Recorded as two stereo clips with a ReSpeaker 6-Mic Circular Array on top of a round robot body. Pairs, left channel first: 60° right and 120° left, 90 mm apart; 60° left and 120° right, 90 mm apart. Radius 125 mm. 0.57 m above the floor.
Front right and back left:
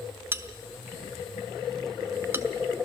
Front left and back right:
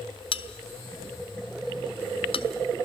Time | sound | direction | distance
0.3 | a bell | 55° left | 0.9 m